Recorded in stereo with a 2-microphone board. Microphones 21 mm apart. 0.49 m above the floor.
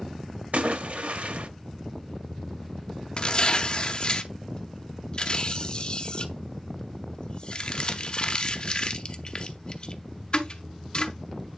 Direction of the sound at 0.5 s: 80° right.